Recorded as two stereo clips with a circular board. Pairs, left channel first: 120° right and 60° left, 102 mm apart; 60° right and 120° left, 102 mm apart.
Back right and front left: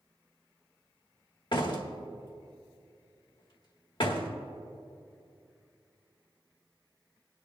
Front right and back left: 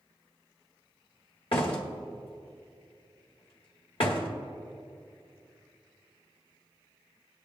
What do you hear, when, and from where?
1.5 s a door slam: 85° right, 1.5 m